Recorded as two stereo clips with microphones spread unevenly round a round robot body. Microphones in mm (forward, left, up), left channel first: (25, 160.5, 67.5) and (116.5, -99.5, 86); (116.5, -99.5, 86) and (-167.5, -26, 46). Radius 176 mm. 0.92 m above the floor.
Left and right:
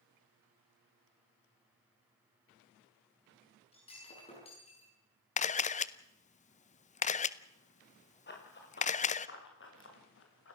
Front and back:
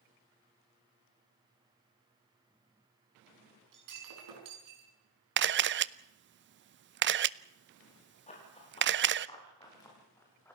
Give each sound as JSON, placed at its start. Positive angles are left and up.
{"t": 3.7, "sound": "breaking glass", "azimuth_deg": 180, "distance_m": 6.5}
{"t": 5.4, "sound": "a camera shutter", "azimuth_deg": 160, "distance_m": 0.7}
{"t": 8.3, "sound": "running footsteps", "azimuth_deg": 55, "distance_m": 7.0}